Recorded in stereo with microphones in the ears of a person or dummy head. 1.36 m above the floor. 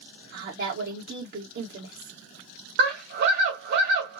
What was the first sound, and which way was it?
A woman speaking, 55° right (ahead or behind).